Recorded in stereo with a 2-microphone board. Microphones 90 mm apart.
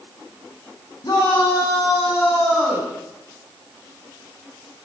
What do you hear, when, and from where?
1.0 s a shout: 45° left (ahead or behind), 6.5 m; by 2.9 s 20° left (ahead or behind), 6.5 m